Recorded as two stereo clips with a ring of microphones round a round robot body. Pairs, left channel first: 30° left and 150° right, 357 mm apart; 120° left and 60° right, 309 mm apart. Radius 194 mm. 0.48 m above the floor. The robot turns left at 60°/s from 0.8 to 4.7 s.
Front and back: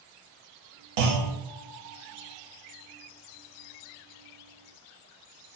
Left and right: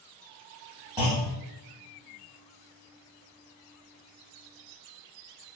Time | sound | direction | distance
1.0 | a clunk | 140° right | 0.8 m